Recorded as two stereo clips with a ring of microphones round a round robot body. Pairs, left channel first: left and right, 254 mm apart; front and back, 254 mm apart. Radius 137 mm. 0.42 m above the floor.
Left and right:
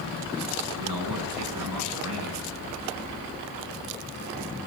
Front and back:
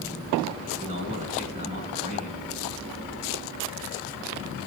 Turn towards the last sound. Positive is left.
turn(degrees=-115)